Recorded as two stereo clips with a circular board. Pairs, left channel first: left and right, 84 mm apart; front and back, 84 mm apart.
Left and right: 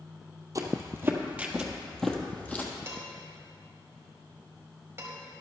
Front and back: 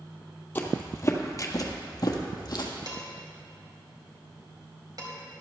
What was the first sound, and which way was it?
Footsteps, 60° right.